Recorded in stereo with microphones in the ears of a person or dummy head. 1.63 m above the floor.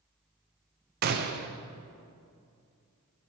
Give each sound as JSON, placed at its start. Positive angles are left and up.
{"t": 1.0, "sound": "a gunshot", "side_deg": -55, "distance_m": 1.0}